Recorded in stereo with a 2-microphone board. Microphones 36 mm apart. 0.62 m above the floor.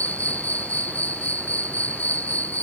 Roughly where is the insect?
Left.